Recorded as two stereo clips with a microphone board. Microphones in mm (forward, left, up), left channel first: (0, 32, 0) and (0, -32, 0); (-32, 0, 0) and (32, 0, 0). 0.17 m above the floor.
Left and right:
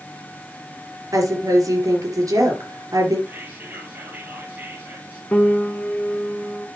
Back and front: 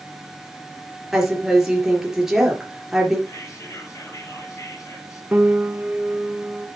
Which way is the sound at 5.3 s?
40° left.